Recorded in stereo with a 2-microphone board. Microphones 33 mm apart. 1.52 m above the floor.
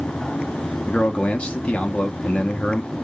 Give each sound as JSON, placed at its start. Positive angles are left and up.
{"t": 0.9, "sound": "a man speaking", "side_deg": 30, "distance_m": 0.5}